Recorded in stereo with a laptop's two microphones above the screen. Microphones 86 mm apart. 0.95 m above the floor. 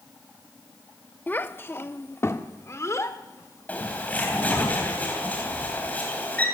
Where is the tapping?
I don't hear tapping.